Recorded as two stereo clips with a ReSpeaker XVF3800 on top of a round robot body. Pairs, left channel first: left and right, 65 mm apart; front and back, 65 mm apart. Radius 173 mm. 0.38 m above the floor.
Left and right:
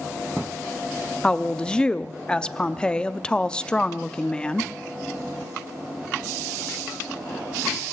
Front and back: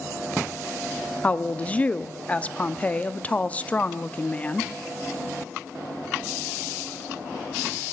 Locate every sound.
1.2 s a woman speaking: 30° left, 0.8 m